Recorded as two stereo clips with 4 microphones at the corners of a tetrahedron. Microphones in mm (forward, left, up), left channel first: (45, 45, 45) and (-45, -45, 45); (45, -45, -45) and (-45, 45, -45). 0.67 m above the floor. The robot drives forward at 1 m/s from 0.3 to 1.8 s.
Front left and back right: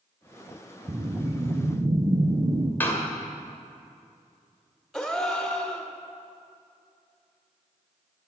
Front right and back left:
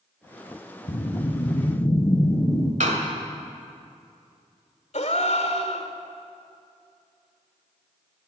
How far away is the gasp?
About 1.5 m.